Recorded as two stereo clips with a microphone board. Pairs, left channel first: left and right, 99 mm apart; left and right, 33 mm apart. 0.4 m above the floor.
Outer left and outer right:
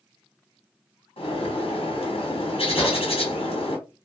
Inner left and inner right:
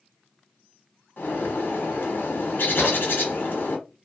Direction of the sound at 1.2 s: 80° left.